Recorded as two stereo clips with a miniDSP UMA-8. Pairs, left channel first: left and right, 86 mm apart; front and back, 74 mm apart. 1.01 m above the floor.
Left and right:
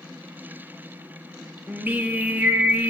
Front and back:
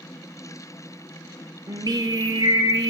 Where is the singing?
155° right, 1.9 m.